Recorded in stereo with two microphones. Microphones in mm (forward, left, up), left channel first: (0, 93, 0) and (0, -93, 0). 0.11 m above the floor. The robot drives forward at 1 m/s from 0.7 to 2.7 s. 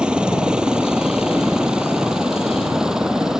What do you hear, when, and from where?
0.0 s a helicopter: 5° right (ahead or behind)